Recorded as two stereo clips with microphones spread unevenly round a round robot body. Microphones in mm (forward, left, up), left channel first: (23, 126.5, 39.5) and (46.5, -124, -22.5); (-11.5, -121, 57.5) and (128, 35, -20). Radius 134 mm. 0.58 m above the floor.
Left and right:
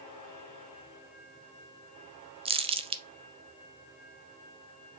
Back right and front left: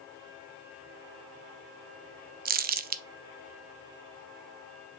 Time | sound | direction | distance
2.5 | crumpling | 10° right | 0.6 m